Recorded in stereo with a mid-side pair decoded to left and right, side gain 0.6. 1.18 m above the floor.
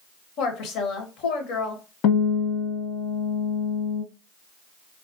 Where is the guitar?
65° left, 1.0 m.